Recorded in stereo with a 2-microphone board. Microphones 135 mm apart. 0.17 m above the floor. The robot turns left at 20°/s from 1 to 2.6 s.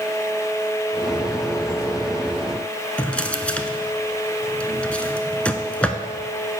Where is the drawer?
10° left (ahead or behind), 0.5 m.